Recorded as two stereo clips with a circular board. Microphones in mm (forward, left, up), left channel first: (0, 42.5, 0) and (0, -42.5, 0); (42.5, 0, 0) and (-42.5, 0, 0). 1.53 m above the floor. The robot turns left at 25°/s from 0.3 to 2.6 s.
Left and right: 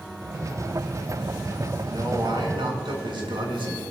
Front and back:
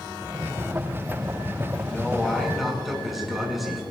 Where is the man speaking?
75° right, 6.5 m; by 3.8 s 90° right, 6.5 m.